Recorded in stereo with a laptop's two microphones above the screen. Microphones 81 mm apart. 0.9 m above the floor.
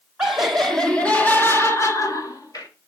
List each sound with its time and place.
0.2 s laughter: 10° right (ahead or behind), 1.1 m; by 2.7 s 55° left (ahead or behind), 1.3 m